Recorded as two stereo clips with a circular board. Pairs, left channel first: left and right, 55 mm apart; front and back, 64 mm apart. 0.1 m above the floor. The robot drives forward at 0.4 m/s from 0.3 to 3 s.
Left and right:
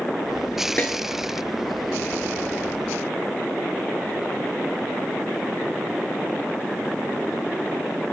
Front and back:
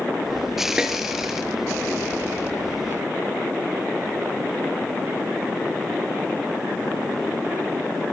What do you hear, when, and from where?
0.8 s a snare drum: 110° left, 0.9 m; by 0.9 s 115° left, 0.9 m